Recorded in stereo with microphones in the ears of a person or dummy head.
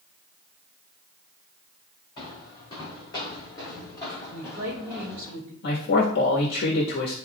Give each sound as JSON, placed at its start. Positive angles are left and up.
{"t": 2.2, "sound": "footsteps", "side_deg": 30, "distance_m": 4.0}
{"t": 4.3, "sound": "a woman speaking", "side_deg": -65, "distance_m": 1.7}
{"t": 5.6, "sound": "a man speaking", "side_deg": 60, "distance_m": 1.3}